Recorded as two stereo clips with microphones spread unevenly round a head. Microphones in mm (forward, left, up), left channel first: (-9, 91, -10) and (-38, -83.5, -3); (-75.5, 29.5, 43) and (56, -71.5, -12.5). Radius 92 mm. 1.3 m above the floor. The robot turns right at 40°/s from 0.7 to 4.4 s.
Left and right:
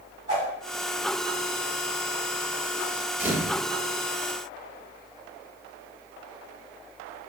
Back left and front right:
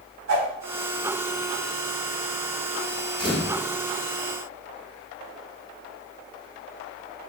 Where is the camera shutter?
175° right, 1.2 m; by 3.6 s 160° right, 1.2 m.